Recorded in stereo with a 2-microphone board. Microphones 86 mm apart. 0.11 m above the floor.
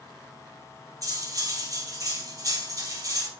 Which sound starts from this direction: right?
Cutlery clinking, at 1.0 s.